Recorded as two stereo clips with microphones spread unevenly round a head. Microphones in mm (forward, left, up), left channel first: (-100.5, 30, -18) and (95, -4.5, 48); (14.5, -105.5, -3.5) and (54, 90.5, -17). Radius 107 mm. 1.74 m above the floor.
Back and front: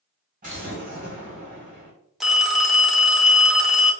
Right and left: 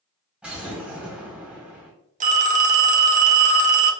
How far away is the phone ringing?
About 0.7 m.